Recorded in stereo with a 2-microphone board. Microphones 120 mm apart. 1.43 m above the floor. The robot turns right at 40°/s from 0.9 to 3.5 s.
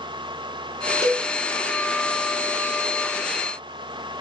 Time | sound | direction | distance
1.0 | a cowbell | 20° left (ahead or behind) | 0.9 m